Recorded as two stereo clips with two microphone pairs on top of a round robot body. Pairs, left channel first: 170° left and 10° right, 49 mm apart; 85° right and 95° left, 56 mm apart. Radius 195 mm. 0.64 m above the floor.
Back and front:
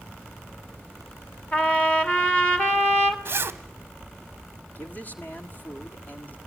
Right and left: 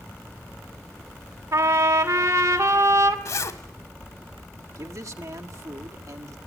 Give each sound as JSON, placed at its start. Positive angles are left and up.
{"t": 1.5, "sound": "a trumpet", "azimuth_deg": 100, "distance_m": 2.0}
{"t": 3.2, "sound": "a zipper", "azimuth_deg": -55, "distance_m": 0.9}
{"t": 4.8, "sound": "a man speaking", "azimuth_deg": 115, "distance_m": 1.7}